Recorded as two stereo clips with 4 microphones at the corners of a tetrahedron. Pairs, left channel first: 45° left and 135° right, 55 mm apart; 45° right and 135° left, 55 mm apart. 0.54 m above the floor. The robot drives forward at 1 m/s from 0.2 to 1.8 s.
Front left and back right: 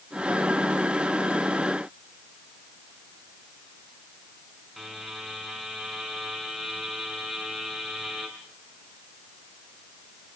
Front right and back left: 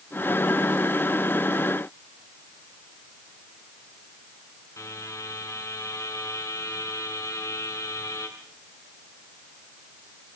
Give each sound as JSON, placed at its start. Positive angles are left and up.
{"t": 4.8, "sound": "a buzzer", "azimuth_deg": -50, "distance_m": 6.0}